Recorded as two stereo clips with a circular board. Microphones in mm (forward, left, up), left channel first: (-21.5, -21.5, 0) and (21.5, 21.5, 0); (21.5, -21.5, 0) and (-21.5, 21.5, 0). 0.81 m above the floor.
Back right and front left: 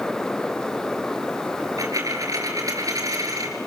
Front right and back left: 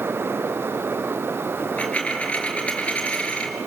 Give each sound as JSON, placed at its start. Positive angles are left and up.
{"t": 1.6, "sound": "a dropped coin", "azimuth_deg": 25, "distance_m": 5.0}